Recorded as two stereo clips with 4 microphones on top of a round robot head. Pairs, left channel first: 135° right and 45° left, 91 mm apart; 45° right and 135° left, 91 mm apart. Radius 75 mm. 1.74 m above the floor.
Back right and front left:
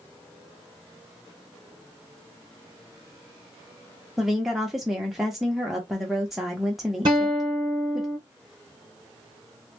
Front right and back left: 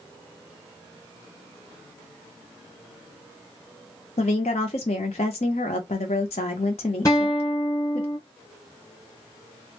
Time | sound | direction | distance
4.2 | a woman speaking | 40° right | 0.6 m
7.0 | a guitar | 10° left | 1.0 m